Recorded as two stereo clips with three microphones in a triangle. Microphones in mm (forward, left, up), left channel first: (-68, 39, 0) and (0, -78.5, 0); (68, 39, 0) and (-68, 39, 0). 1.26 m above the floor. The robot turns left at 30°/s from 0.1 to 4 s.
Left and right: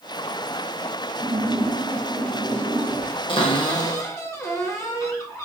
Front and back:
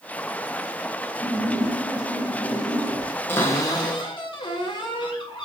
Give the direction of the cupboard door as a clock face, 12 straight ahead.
9 o'clock.